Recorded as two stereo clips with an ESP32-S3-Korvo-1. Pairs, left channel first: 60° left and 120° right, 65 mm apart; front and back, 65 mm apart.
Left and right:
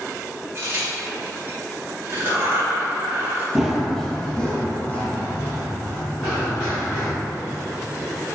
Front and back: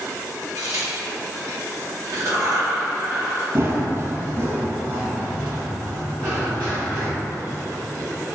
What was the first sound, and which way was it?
A crack, 165° right.